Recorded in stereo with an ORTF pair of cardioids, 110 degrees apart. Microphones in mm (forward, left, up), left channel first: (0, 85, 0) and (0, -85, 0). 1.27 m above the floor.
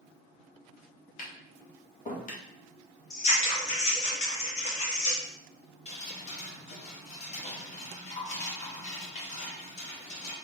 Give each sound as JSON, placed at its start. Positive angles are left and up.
{"t": 1.2, "sound": "tapping", "azimuth_deg": 50, "distance_m": 1.4}
{"t": 3.1, "sound": "scissors", "azimuth_deg": 40, "distance_m": 2.0}
{"t": 5.8, "sound": "dripping", "azimuth_deg": 40, "distance_m": 1.8}